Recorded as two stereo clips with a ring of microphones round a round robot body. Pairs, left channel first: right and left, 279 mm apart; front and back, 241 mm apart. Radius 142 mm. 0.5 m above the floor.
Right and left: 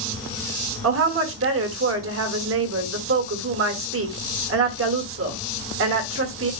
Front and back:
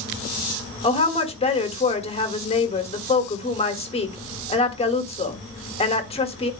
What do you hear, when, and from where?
0.8 s a woman speaking: 60° left, 1.5 m